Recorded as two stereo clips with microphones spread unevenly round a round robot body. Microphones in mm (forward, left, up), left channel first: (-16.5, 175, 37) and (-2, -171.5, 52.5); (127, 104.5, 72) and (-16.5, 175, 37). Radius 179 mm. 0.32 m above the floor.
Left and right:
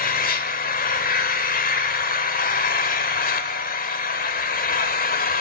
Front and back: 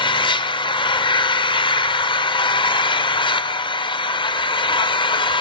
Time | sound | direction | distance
0.0 | an engine running | 40° left | 0.7 m